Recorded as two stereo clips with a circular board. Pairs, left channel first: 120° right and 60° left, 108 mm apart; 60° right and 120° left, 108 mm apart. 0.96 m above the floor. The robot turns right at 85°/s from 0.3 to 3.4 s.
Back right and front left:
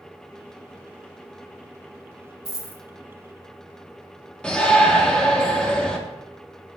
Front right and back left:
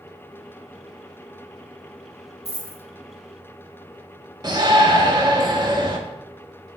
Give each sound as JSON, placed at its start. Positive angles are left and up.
{"t": 2.5, "sound": "a dropped coin", "azimuth_deg": -70, "distance_m": 1.3}
{"t": 4.4, "sound": "a shout", "azimuth_deg": 160, "distance_m": 0.8}